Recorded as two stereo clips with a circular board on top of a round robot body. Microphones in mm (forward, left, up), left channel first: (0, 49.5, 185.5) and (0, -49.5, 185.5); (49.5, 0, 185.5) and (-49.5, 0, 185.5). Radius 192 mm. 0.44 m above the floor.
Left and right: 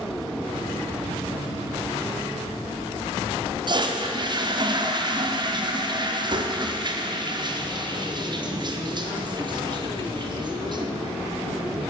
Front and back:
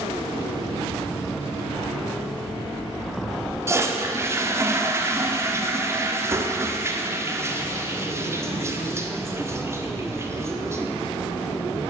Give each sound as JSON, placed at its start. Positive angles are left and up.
{"t": 3.7, "sound": "a toilet flushing", "azimuth_deg": -120, "distance_m": 1.8}